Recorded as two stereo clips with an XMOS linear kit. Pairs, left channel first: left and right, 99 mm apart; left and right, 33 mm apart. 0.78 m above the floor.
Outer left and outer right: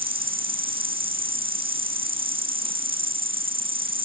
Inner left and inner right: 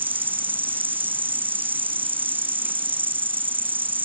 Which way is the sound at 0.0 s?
70° right (ahead or behind).